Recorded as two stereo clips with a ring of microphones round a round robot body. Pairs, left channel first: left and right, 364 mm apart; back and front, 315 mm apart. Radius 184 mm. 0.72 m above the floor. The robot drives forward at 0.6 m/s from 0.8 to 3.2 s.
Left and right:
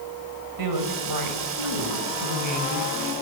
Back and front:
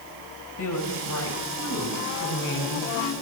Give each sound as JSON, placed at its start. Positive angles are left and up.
{"t": 0.6, "sound": "a woman speaking", "azimuth_deg": -125, "distance_m": 3.5}